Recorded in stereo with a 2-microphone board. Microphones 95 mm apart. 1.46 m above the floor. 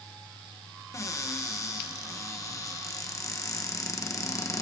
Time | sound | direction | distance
0.9 | a cupboard door | 30° left (ahead or behind) | 1.3 m